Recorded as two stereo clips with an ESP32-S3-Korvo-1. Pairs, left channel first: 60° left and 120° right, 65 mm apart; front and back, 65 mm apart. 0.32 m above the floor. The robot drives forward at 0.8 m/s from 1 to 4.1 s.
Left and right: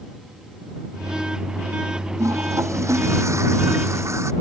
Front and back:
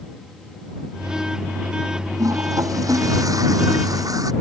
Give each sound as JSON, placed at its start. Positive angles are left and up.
{"t": 2.2, "sound": "a toilet flushing", "azimuth_deg": -160}